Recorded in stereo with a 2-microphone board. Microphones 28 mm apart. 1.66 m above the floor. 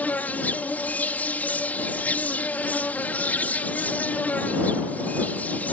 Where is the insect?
75° left (ahead or behind).